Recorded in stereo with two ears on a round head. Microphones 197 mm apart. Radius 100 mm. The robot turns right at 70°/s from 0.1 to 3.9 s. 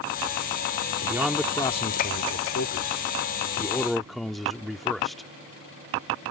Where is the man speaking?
15° right; by 5.3 s straight behind.